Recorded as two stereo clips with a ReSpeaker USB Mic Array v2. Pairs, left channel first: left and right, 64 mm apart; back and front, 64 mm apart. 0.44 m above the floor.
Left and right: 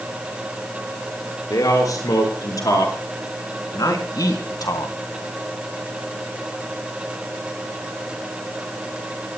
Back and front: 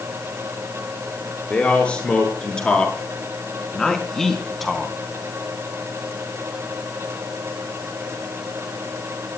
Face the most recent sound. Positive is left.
turn(degrees=90)